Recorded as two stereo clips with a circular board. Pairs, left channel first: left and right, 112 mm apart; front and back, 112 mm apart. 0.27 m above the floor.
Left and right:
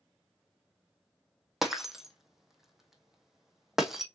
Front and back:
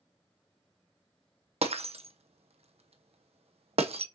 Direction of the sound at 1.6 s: 175° right.